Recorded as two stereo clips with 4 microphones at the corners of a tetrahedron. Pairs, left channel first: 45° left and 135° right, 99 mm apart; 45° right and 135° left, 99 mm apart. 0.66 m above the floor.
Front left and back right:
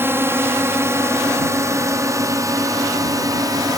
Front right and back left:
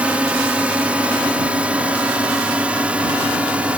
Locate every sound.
0.0 s a drone: 165° right; by 3.8 s 155° right